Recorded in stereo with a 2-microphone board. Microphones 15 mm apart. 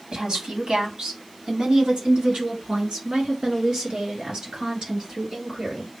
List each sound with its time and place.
0.1 s a woman speaking: 60° right (ahead or behind), 1.8 m; by 5.9 s 70° right (ahead or behind), 5.5 m